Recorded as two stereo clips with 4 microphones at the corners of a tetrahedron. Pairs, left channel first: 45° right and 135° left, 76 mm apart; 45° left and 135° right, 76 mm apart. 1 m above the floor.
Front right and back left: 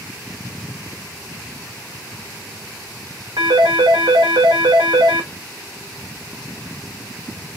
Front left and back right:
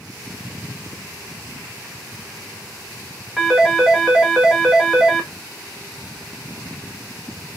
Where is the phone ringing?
145° left, 1.1 m.